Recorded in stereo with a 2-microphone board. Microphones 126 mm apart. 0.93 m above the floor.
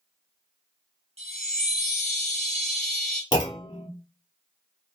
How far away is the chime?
About 1.0 m.